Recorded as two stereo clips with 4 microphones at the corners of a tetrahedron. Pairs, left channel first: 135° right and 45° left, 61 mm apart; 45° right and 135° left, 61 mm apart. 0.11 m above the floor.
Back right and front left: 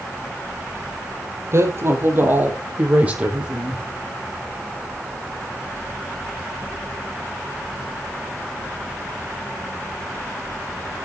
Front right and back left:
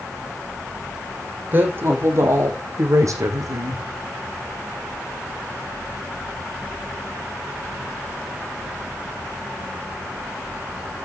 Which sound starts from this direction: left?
A woman speaking, at 1.5 s.